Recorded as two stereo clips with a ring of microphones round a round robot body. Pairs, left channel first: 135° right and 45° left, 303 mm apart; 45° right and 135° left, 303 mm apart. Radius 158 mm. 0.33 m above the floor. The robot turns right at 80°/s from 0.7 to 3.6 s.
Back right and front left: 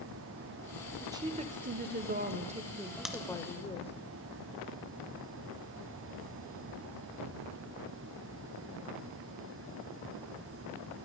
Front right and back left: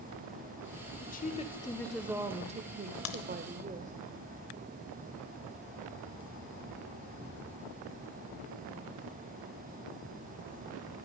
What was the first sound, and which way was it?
A woman speaking, 30° right.